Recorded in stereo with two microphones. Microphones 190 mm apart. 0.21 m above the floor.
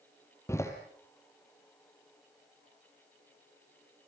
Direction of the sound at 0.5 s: 15° left (ahead or behind).